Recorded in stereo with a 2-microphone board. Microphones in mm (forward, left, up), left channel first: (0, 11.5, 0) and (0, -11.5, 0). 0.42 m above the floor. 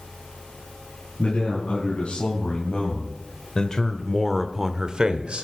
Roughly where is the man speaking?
Left.